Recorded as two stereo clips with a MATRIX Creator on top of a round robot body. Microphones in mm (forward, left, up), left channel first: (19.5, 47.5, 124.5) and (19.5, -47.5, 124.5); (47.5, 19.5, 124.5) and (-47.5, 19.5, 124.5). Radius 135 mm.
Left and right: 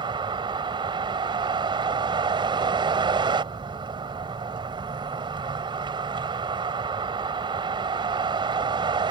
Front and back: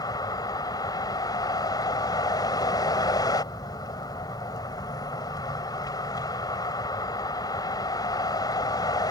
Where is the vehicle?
50° right.